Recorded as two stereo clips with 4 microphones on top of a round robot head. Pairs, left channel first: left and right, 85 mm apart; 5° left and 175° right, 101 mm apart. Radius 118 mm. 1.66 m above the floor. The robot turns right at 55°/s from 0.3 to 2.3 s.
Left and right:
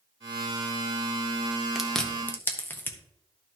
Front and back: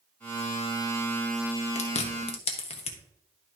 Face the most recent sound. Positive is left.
turn(degrees=25)